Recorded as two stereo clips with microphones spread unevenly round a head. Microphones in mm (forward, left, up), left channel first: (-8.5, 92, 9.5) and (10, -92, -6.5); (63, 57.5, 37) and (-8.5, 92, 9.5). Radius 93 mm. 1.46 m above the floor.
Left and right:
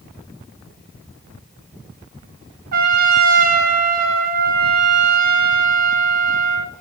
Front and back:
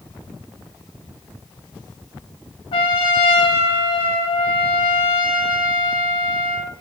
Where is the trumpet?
55° right, 0.5 m.